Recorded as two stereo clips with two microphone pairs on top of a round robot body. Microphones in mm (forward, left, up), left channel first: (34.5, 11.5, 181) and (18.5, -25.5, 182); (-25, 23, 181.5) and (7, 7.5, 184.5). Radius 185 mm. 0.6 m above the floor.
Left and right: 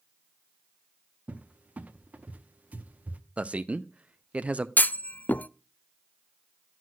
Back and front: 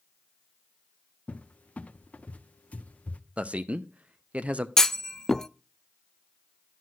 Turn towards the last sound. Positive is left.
turn(degrees=90)